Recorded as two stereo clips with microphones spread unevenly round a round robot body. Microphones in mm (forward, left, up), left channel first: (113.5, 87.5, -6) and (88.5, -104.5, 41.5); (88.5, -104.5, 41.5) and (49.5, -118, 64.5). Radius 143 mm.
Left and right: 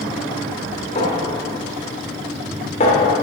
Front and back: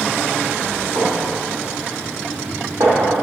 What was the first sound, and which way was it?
A clink, 145° left.